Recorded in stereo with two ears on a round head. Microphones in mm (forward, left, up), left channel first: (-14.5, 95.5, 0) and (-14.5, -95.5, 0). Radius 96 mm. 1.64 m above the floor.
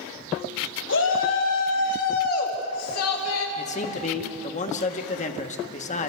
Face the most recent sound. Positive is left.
turn(degrees=35)  # may be behind; listen again after turning